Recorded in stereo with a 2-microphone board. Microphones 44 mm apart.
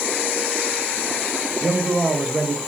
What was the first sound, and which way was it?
A man speaking, 30° right (ahead or behind).